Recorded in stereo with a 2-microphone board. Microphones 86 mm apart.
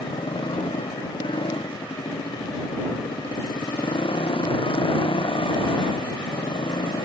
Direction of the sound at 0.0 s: 90° left.